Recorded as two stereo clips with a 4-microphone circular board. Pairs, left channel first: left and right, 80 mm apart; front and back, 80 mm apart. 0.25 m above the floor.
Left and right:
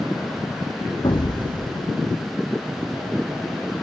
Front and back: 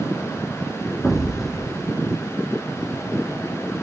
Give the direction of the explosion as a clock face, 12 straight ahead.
9 o'clock.